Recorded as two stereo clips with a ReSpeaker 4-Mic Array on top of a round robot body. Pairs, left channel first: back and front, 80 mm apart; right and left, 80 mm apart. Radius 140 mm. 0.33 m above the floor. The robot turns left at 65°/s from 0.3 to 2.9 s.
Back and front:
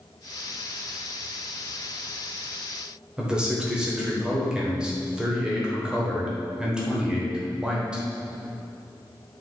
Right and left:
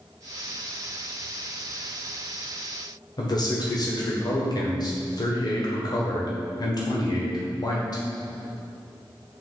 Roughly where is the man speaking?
Right.